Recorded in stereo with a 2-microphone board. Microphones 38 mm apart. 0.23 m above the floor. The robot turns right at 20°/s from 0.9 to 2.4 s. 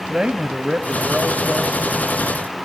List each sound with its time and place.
0.1 s a man speaking: 20° right (ahead or behind), 1.2 m; by 1.8 s 15° right (ahead or behind), 1.2 m